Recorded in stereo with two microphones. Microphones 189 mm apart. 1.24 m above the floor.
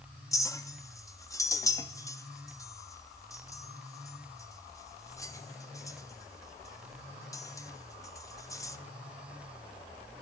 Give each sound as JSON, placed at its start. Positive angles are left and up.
{"t": 0.3, "sound": "a clink", "side_deg": 15, "distance_m": 1.1}